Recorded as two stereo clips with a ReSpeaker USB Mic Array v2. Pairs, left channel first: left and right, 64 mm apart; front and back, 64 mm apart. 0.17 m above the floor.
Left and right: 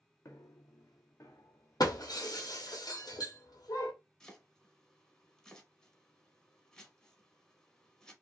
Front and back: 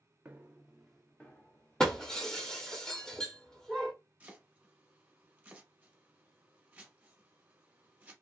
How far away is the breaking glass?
About 0.8 m.